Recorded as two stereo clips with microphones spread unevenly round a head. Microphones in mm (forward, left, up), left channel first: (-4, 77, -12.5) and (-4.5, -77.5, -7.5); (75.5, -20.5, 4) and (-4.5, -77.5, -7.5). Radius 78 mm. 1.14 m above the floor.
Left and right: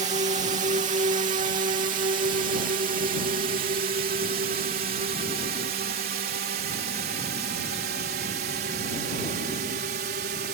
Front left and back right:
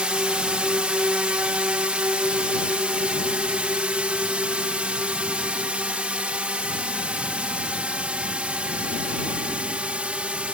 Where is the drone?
75° right; by 10.5 s 65° right.